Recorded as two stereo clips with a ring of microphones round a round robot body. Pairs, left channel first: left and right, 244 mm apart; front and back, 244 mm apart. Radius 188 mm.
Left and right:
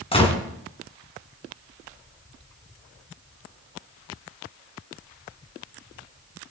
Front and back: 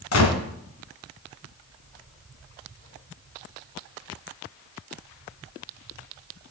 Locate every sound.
0.1 s a gunshot: 25° left, 2.5 m